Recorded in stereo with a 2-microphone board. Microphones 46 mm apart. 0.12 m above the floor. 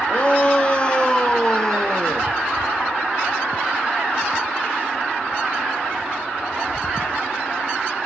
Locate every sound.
0.1 s a shout: 25° left (ahead or behind), 3.5 m; by 2.3 s 15° left (ahead or behind), 2.5 m